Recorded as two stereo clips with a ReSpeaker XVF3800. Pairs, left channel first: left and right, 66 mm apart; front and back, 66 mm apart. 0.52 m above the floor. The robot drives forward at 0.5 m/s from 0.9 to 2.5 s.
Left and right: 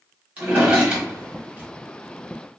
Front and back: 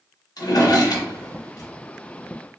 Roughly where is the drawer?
Ahead.